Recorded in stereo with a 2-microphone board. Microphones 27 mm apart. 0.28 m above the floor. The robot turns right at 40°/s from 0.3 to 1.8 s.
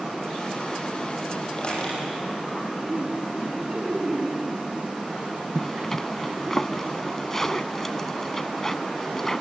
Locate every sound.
1.6 s a squeak: 40° left (ahead or behind), 7 m; by 2.0 s 50° left (ahead or behind), 7 m
2.9 s laughter: 50° right (ahead or behind), 2.5 m
5.5 s a zipper: 10° left (ahead or behind), 0.5 m